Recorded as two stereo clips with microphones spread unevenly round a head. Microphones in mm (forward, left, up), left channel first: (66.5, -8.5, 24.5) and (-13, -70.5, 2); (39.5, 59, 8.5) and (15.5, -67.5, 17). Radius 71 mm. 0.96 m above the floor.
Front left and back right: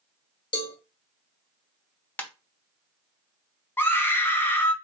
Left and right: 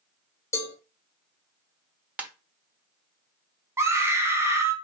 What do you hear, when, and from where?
0.5 s a cowbell: 15° left, 1.2 m
2.2 s a ringtone: 25° right, 1.1 m
3.8 s a scream: 35° right, 1.3 m